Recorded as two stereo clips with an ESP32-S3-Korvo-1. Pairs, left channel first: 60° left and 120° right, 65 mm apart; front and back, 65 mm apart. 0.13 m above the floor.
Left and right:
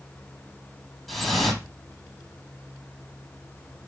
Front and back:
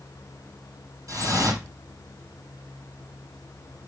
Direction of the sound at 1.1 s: 150° left.